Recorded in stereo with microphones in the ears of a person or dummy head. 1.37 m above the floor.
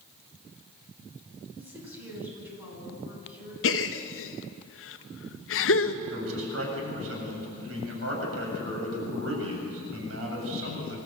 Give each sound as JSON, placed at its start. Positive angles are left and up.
{"t": 1.6, "sound": "a woman speaking", "side_deg": -15, "distance_m": 9.5}
{"t": 3.6, "sound": "a gasp", "side_deg": 65, "distance_m": 0.9}
{"t": 6.1, "sound": "a man speaking", "side_deg": -90, "distance_m": 7.5}